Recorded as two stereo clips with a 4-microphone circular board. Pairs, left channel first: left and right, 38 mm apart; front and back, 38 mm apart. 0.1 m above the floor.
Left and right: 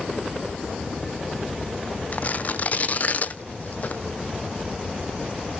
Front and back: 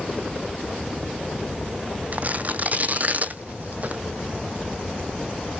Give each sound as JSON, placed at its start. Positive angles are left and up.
{"t": 2.1, "sound": "tearing paper", "azimuth_deg": 135, "distance_m": 0.7}